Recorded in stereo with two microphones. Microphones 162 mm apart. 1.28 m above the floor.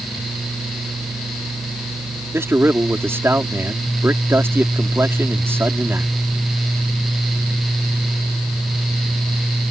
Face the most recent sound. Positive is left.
turn(degrees=-15)  # may be behind; listen again after turning